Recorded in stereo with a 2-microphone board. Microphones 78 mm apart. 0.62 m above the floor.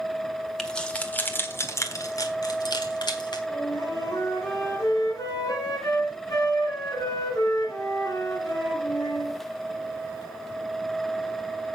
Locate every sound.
0.6 s keys jangling: 5° left (ahead or behind), 1.4 m; by 3.4 s 75° left (ahead or behind), 1.8 m
3.5 s a flute: 50° left (ahead or behind), 4 m